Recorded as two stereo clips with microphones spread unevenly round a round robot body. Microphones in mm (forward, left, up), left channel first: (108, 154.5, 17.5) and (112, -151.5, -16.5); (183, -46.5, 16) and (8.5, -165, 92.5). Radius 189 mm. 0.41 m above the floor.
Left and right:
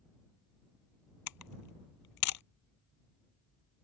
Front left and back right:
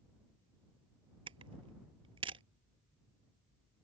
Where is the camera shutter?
140° left.